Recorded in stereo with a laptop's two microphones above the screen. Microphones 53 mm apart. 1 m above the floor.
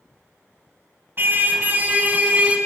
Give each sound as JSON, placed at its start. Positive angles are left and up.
{"t": 1.2, "sound": "a car horn", "side_deg": -45, "distance_m": 3.5}